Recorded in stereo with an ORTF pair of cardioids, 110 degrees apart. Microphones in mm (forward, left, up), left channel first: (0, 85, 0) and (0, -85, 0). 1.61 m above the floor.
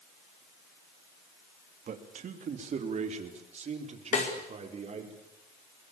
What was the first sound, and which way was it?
A man speaking, 50° right.